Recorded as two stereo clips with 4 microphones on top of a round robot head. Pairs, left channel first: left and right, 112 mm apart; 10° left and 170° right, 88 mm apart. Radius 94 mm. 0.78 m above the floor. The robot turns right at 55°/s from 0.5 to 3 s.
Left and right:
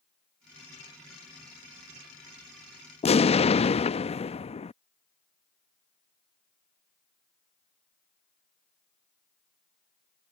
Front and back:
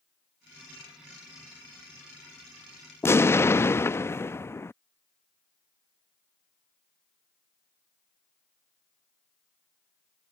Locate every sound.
3.0 s an explosion: 70° left